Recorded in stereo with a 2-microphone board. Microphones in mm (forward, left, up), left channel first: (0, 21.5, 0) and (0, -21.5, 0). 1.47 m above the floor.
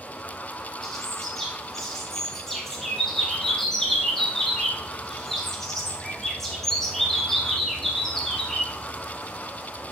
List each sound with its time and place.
0.8 s a bird: 10° left (ahead or behind), 1.5 m